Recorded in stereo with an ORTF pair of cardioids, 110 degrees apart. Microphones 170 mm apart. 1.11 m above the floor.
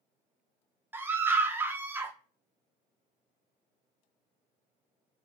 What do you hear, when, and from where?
0.9 s a scream: 15° right, 0.6 m